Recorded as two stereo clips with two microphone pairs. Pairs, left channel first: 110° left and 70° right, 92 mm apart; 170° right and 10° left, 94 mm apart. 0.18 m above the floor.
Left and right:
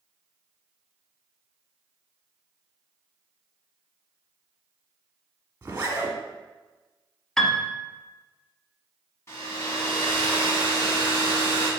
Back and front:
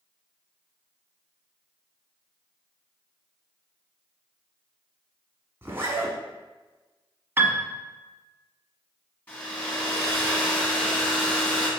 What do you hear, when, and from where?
5.6 s a zipper: 35° right, 1.1 m
7.4 s a piano: 30° left, 0.5 m
9.3 s a hair dryer: 125° left, 1.9 m